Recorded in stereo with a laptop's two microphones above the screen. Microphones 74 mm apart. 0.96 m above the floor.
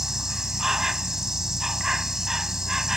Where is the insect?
5° right (ahead or behind).